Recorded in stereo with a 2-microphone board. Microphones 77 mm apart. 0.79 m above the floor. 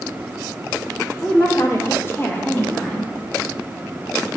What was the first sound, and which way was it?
A woman speaking, 40° left (ahead or behind).